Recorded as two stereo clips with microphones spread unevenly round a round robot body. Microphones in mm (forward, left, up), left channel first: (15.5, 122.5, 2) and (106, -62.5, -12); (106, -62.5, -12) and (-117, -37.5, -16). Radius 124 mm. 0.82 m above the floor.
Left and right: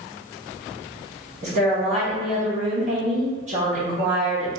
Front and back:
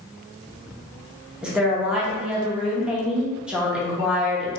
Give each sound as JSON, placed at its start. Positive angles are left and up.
{"t": 1.4, "sound": "a woman speaking", "azimuth_deg": -105, "distance_m": 0.7}